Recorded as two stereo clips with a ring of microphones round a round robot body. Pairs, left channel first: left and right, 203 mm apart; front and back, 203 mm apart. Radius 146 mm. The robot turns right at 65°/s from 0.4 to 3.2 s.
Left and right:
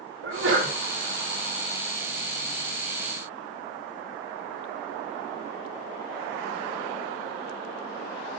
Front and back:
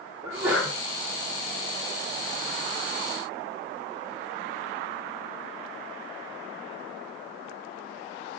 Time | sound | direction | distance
0.2 | a sneeze | 100° right | 3 m